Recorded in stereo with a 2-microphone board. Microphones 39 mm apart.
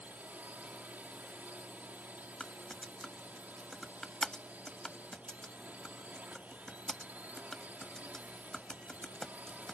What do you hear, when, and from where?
0.0 s a drone: 40° right (ahead or behind)
2.4 s typing on a keyboard: 10° left (ahead or behind)